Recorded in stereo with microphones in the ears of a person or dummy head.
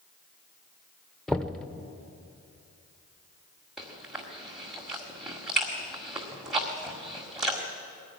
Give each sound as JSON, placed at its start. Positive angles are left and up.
{"t": 1.3, "sound": "knocking", "side_deg": 0, "distance_m": 0.7}
{"t": 3.8, "sound": "chewing", "side_deg": 0, "distance_m": 1.7}